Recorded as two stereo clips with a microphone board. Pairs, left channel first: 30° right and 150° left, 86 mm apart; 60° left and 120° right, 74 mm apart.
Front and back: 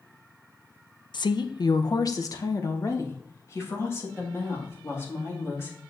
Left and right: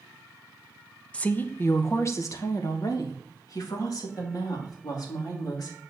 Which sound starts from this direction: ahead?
A woman speaking, at 1.1 s.